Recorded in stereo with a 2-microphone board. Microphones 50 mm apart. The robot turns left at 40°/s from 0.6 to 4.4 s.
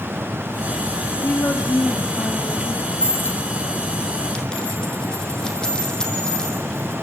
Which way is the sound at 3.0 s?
60° left (ahead or behind).